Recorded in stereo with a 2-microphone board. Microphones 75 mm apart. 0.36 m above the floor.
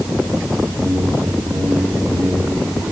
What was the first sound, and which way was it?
A whoosh, 30° right (ahead or behind).